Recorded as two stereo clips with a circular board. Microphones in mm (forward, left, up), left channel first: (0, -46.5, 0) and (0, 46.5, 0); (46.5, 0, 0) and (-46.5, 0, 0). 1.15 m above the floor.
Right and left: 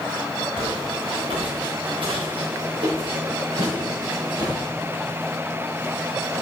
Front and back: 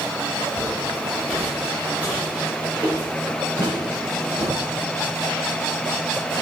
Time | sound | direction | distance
0.6 | footsteps | 80° left | 5 m